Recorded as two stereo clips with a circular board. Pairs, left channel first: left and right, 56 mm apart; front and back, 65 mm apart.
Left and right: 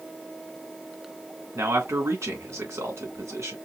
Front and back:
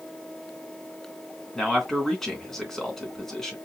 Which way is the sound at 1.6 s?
85° right.